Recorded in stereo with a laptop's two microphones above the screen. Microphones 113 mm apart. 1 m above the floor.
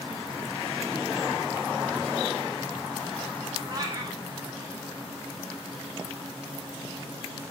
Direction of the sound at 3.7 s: 35° right (ahead or behind).